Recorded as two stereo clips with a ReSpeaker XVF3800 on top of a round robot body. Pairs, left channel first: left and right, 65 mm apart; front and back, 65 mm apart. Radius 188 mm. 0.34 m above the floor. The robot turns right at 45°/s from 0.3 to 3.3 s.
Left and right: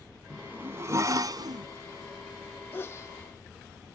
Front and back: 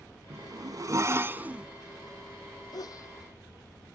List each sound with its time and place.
0.3 s a zipper: 165° right; by 1.7 s 105° right
2.7 s a sneeze: 30° left; by 3.1 s 45° left